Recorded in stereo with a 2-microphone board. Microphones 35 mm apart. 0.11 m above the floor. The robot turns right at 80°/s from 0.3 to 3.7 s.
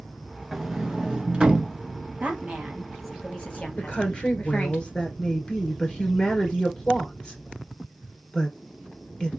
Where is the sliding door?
5° right (ahead or behind), 0.8 m; by 1.8 s 20° right (ahead or behind), 0.8 m.